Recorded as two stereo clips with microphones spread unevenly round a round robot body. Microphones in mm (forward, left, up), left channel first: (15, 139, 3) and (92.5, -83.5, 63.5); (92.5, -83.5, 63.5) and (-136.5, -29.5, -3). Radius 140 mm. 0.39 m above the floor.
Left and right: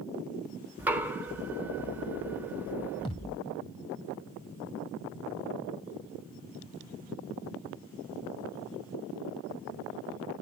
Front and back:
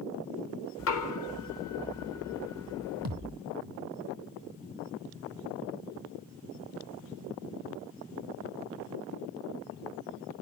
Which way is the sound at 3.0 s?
175° right.